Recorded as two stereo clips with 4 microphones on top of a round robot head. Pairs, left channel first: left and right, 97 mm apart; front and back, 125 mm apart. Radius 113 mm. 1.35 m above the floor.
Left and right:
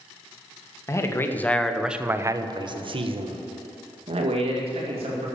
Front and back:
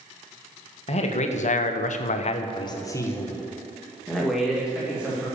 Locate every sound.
0.9 s a man speaking: 35° left, 1.6 m; by 5.3 s 95° right, 3.5 m